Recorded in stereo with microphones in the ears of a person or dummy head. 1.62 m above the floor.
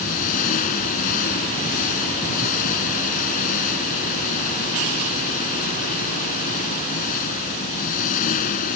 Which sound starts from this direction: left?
An engine running, at 0.0 s.